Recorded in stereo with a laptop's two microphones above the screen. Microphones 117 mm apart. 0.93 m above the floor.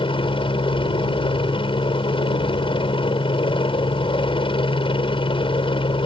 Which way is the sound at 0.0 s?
45° left (ahead or behind).